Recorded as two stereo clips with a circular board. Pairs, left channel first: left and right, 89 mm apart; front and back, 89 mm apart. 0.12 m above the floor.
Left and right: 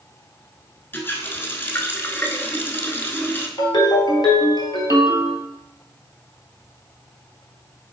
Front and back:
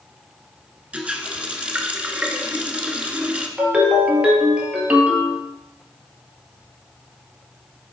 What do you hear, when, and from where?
0.9 s a running tap: 120° left, 0.8 m
3.6 s a ringtone: 110° left, 1.5 m